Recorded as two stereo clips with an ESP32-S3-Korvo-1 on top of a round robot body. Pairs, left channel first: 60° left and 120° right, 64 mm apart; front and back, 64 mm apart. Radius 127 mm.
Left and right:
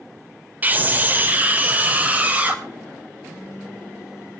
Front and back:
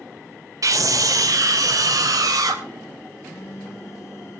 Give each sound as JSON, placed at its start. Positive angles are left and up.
{"t": 0.6, "sound": "a scream", "azimuth_deg": -175, "distance_m": 2.0}
{"t": 3.2, "sound": "a phone buzzing", "azimuth_deg": -45, "distance_m": 3.5}